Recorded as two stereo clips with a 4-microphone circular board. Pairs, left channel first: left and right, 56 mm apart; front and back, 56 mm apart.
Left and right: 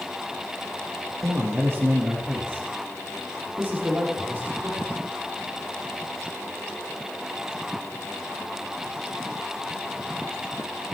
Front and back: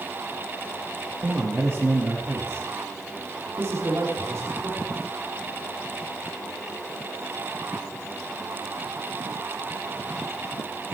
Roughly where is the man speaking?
Behind right.